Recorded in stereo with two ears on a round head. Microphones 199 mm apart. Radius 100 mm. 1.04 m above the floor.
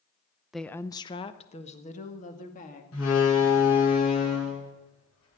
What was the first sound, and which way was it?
A woman speaking, centre (ahead or behind).